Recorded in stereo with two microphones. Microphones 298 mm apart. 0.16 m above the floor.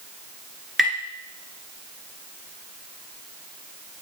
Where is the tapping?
Centre (ahead or behind), 2 m.